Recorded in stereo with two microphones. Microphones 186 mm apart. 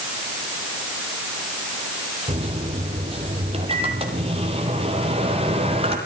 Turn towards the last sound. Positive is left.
turn(degrees=-30)  # may be behind; listen again after turning